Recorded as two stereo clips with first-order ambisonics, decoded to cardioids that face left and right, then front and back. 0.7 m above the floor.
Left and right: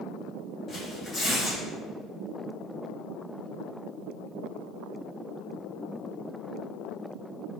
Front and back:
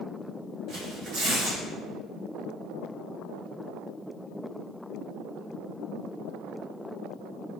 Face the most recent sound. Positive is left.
turn(degrees=155)